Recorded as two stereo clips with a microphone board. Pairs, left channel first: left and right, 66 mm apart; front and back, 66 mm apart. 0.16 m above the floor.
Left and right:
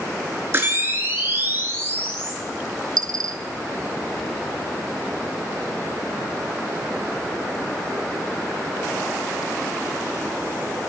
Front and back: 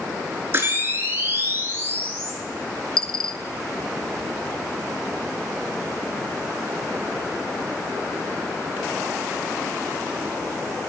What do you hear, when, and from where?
0.5 s a camera shutter: 135° right, 2 m
3.0 s a dropped coin: 80° right, 0.6 m